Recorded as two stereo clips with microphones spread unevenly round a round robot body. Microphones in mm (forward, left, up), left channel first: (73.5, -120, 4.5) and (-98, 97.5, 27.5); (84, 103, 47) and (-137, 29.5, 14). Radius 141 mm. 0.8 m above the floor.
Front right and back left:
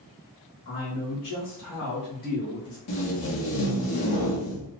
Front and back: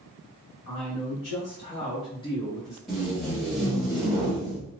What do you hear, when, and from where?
0.7 s a man speaking: 20° right, 1.5 m; by 2.8 s 105° right, 0.7 m
2.9 s tape being pulled: 75° right, 0.9 m